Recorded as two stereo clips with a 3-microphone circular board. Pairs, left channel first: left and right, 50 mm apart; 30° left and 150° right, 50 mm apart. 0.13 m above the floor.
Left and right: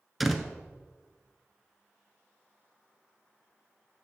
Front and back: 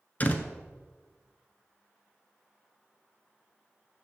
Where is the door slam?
Straight ahead, 1.0 m.